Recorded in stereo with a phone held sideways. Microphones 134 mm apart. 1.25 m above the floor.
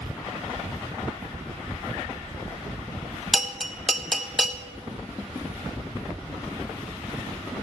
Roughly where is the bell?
Centre.